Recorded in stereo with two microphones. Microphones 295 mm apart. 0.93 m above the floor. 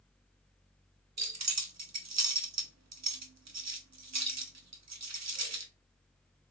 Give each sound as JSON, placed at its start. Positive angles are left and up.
{"t": 1.2, "sound": "keys jangling", "side_deg": -65, "distance_m": 0.5}